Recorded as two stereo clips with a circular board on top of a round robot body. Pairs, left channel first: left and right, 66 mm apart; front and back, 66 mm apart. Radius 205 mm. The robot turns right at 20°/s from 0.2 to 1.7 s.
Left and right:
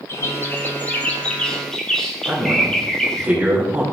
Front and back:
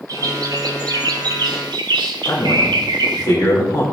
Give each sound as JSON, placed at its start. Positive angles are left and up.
{"t": 0.1, "sound": "a bird", "azimuth_deg": 145, "distance_m": 0.8}
{"t": 2.2, "sound": "a man speaking", "azimuth_deg": -20, "distance_m": 2.5}